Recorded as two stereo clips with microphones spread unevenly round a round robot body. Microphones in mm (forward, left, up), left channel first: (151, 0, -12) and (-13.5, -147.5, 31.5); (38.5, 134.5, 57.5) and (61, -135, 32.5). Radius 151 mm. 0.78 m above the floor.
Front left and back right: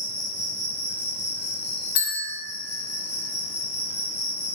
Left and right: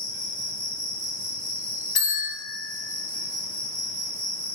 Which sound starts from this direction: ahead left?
A bell, at 1.9 s.